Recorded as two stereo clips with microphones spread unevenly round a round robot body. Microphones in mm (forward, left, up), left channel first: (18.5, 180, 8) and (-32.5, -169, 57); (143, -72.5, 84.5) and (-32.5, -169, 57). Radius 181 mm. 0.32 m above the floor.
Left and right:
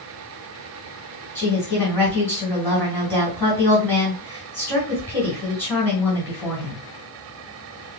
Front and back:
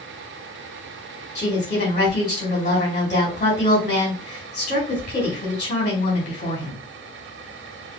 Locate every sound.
1.4 s a woman speaking: 15° right, 1.7 m